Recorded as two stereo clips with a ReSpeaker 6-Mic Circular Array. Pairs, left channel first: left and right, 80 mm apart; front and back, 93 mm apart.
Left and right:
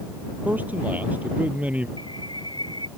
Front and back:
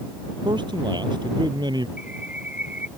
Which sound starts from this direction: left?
A bird, at 2.0 s.